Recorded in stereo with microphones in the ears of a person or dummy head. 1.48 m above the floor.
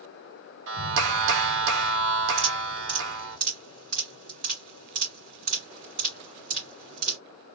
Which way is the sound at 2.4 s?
35° right (ahead or behind).